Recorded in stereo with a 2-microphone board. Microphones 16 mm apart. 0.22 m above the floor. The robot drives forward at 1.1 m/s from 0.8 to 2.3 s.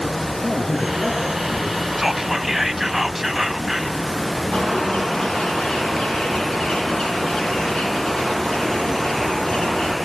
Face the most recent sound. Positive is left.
turn(degrees=80)